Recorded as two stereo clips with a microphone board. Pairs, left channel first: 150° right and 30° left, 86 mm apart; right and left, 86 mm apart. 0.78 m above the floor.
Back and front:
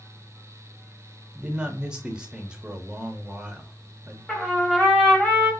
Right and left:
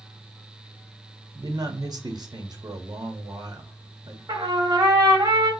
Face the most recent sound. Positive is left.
turn(degrees=130)